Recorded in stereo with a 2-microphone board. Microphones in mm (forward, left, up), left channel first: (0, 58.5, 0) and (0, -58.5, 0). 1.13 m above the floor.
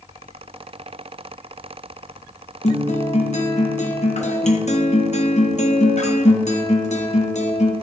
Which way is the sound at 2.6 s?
65° left (ahead or behind).